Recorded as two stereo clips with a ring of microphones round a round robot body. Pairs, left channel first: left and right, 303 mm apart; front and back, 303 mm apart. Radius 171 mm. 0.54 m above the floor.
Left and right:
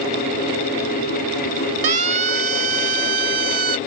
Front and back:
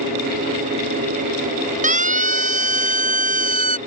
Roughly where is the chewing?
I don't hear chewing.